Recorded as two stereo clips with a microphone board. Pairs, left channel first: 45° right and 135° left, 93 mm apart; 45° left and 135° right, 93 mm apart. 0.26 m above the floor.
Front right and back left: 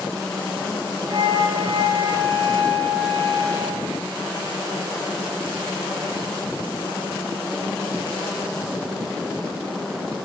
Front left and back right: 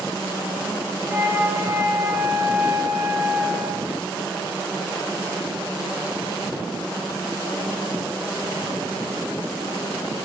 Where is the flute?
170° left, 2.5 m.